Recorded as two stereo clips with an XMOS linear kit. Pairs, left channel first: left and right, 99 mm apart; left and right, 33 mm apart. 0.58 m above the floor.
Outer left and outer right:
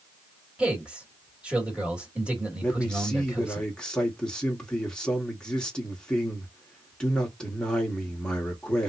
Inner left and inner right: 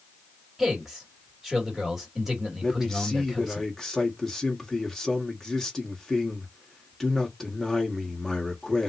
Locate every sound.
0.6 s a man speaking: 10° right (ahead or behind), 2 m
2.6 s a man speaking: 10° left (ahead or behind), 1.4 m